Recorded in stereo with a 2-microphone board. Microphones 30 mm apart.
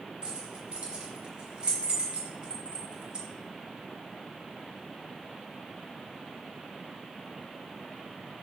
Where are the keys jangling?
30° right (ahead or behind), 0.8 m.